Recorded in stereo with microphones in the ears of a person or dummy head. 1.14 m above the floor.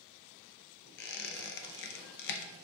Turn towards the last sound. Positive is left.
turn(degrees=60)  # may be behind; listen again after turning